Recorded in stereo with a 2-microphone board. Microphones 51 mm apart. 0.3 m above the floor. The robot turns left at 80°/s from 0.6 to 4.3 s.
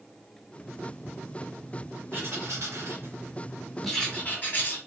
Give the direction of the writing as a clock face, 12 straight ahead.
2 o'clock.